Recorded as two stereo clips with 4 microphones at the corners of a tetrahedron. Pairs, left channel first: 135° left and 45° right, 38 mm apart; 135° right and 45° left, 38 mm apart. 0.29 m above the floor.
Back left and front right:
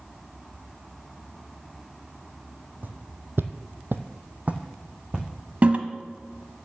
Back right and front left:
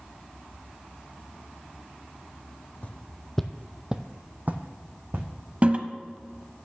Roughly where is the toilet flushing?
Ahead.